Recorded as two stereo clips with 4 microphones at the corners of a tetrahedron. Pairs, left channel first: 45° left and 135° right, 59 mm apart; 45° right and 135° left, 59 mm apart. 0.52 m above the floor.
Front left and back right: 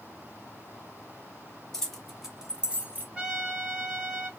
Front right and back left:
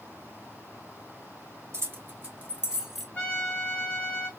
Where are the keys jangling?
130° left, 0.9 m; by 3.0 s 135° right, 0.7 m.